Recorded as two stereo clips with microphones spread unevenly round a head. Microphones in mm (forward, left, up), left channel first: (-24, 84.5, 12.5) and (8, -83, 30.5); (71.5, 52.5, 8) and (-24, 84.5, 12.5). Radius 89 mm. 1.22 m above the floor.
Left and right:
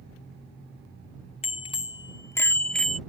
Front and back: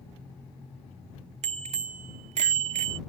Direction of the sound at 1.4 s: 155° left.